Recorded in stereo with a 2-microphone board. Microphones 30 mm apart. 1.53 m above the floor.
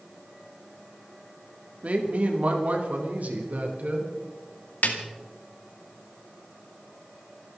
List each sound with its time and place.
1.8 s a woman speaking: 50° right (ahead or behind), 3 m; by 4.1 s 65° right (ahead or behind), 4.5 m
4.8 s a snare drum: 75° left (ahead or behind), 2.5 m